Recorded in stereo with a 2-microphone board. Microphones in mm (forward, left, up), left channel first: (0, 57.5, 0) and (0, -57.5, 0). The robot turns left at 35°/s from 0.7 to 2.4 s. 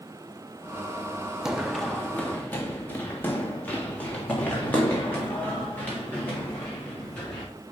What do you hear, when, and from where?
1.4 s running footsteps: 5° right (ahead or behind), 0.6 m; by 7.5 s 15° left (ahead or behind), 5 m